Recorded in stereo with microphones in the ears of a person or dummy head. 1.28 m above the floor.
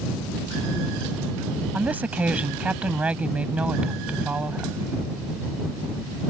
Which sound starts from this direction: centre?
A woman speaking, at 1.7 s.